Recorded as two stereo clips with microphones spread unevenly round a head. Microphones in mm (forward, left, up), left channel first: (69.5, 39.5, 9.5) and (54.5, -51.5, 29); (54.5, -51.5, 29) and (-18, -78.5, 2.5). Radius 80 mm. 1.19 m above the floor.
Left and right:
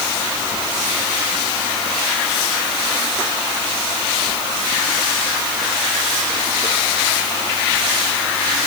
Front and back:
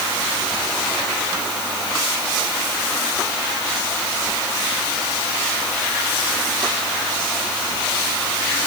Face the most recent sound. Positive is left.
No sound to turn to.